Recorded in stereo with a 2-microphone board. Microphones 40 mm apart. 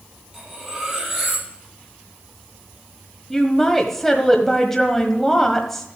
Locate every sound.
0.3 s cutlery clinking: 5° right (ahead or behind), 6.5 m
3.3 s a woman speaking: 10° left (ahead or behind), 1.3 m